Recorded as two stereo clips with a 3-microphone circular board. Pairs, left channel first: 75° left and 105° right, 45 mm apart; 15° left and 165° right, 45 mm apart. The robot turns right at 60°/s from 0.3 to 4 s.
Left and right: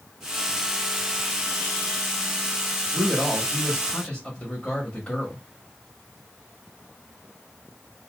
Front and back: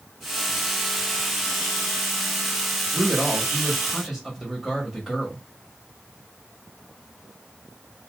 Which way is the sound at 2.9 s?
50° left.